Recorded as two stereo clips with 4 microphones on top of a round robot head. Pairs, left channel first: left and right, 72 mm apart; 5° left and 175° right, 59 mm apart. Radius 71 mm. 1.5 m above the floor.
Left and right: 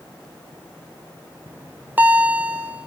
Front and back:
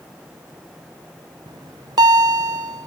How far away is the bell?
About 0.6 m.